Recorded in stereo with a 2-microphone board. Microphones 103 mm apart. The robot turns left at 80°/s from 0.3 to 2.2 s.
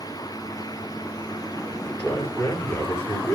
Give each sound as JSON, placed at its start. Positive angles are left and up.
{"t": 1.7, "sound": "a man speaking", "azimuth_deg": -165, "distance_m": 5.5}